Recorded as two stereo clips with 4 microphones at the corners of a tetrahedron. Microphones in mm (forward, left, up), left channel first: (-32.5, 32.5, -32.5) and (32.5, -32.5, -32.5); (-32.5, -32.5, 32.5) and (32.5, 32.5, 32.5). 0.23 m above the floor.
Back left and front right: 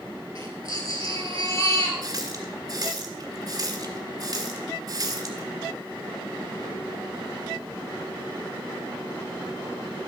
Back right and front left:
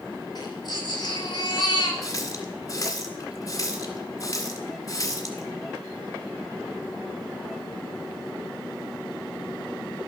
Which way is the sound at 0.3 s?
175° right.